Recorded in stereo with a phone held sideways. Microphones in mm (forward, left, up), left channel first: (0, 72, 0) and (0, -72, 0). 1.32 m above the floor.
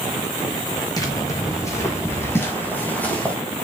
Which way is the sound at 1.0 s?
25° left (ahead or behind).